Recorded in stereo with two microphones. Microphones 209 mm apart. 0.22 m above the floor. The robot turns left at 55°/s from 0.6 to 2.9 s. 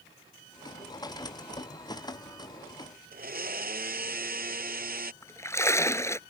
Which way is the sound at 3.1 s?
45° right (ahead or behind).